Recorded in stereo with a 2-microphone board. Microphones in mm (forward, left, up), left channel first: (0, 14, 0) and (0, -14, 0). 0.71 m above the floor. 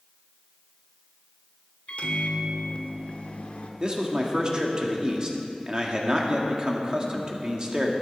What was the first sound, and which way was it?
A microwave, 50° left (ahead or behind).